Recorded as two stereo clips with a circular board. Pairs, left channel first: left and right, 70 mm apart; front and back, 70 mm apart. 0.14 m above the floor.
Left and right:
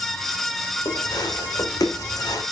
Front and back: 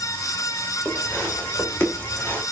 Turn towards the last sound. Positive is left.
turn(degrees=60)